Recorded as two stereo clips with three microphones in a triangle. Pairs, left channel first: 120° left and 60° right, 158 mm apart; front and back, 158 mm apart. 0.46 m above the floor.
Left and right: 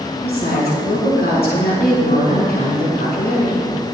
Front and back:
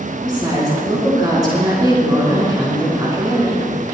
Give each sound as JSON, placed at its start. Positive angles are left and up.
{"t": 0.2, "sound": "a woman speaking", "azimuth_deg": 115, "distance_m": 5.0}